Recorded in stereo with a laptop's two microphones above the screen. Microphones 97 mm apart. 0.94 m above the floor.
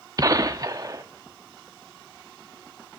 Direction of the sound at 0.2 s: 40° right (ahead or behind).